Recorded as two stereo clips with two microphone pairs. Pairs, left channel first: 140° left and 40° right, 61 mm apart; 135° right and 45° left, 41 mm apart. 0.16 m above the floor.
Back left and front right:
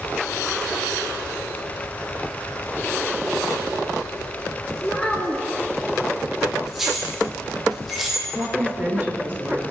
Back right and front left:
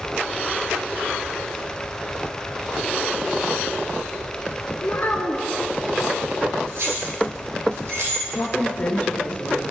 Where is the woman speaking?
85° right, 2.5 m.